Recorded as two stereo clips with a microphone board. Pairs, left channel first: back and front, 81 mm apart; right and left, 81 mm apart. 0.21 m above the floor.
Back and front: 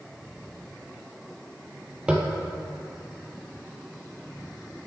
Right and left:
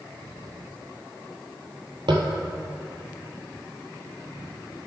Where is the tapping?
75° left, 0.8 m.